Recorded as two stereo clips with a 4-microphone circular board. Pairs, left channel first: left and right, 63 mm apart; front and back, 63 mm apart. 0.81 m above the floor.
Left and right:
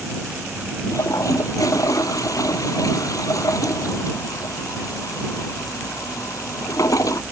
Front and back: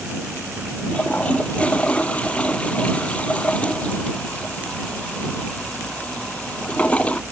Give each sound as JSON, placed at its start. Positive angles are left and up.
{"t": 0.9, "sound": "a toilet flushing", "azimuth_deg": 70}